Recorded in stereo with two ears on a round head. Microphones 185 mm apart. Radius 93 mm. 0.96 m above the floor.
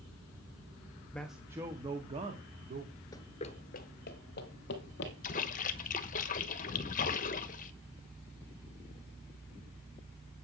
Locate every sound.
1.1 s a man speaking: 5° left (ahead or behind), 0.8 m; by 2.9 s 40° right (ahead or behind), 2.0 m
3.1 s running footsteps: 20° left (ahead or behind), 0.9 m; by 5.1 s 60° left (ahead or behind), 2.5 m
5.2 s a splash: 40° left (ahead or behind), 1.1 m